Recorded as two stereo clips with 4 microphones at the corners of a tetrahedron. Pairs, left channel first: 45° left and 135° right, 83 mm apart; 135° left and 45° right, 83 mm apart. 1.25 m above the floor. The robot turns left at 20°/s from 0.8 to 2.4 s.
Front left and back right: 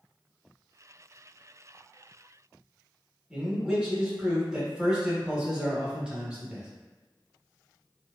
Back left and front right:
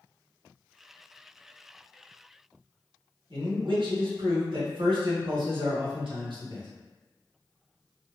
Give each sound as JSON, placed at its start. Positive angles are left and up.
{"t": 3.3, "sound": "a man speaking", "azimuth_deg": -55, "distance_m": 0.9}